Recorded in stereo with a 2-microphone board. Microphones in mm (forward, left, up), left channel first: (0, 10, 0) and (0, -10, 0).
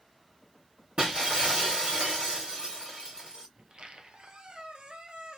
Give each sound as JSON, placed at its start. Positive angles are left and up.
{"t": 1.0, "sound": "breaking glass", "side_deg": -55, "distance_m": 2.5}
{"t": 3.6, "sound": "a squeak", "side_deg": -65, "distance_m": 0.8}